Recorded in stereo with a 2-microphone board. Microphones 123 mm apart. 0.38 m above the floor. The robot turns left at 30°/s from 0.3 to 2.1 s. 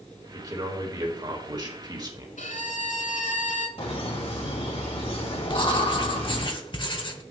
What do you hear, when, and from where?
0.3 s a man speaking: 55° right, 1.6 m; by 2.3 s 110° right, 1.6 m
2.4 s a violin: 85° left, 1.0 m
3.8 s laughter: 50° left (ahead or behind), 2.0 m
5.5 s writing: 40° left (ahead or behind), 0.8 m